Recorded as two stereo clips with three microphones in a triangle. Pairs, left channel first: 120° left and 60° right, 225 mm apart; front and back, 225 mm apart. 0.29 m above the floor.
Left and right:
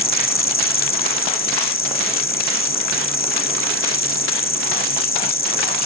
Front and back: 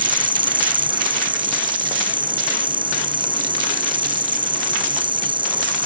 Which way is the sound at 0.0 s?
115° left.